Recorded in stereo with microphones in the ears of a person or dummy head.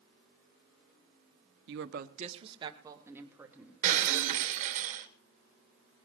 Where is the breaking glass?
50° right (ahead or behind), 2.5 m.